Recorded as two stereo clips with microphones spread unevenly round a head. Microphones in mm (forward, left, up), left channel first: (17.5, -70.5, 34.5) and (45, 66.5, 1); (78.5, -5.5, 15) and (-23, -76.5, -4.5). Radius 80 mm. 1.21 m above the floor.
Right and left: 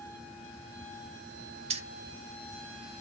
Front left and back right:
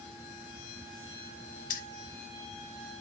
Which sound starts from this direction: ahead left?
Keys jangling, at 1.7 s.